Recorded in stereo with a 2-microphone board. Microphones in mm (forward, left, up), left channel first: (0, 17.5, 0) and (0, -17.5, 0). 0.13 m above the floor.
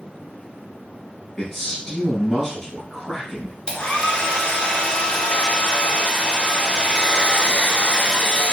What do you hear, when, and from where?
1.4 s a man speaking: 10° left (ahead or behind), 2.5 m
3.7 s a hair dryer: 25° left (ahead or behind), 1.0 m